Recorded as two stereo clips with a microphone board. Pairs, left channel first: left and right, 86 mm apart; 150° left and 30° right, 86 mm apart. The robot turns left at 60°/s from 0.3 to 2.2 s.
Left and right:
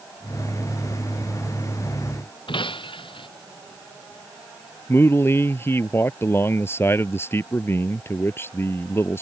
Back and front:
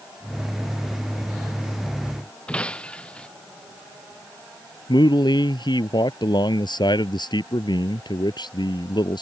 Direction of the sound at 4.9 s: 150° left.